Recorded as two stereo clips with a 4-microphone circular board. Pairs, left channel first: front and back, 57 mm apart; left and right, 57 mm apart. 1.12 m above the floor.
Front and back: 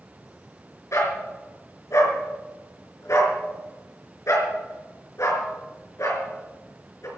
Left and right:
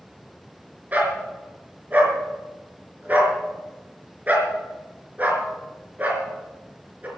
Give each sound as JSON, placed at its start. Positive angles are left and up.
{"t": 0.9, "sound": "a dog barking", "azimuth_deg": -30, "distance_m": 4.0}